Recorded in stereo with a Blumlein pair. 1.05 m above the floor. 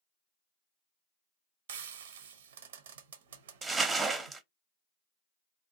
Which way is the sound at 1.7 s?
60° right.